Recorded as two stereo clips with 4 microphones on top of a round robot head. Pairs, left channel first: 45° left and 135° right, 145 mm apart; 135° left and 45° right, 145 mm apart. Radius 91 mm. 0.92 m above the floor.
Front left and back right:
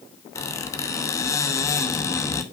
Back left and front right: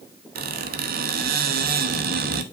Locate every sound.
0.3 s a squeak: 30° right, 1.0 m